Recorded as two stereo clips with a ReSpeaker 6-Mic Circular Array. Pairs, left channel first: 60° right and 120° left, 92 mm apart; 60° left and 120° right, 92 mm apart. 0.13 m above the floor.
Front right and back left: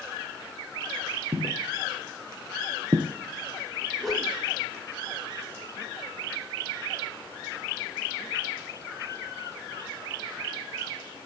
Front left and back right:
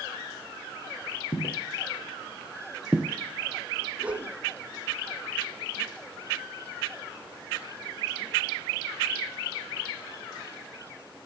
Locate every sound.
1.3 s footsteps: 85° left, 1.8 m; by 3.1 s 175° left, 0.8 m
4.0 s a whoosh: 150° right, 1.2 m